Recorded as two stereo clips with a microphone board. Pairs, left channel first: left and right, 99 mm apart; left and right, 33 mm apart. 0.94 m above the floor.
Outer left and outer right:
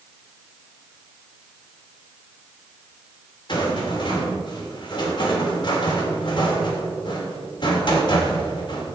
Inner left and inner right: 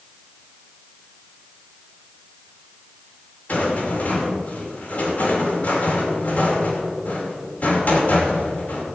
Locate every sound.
3.5 s a rattle: 50° left (ahead or behind), 2.5 m